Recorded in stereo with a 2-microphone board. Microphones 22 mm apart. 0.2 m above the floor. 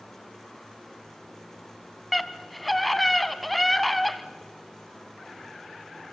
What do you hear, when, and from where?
2.1 s a scream: 5° left (ahead or behind), 1.5 m